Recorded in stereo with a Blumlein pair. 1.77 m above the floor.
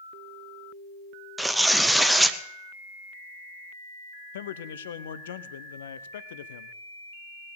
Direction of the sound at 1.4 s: 5° right.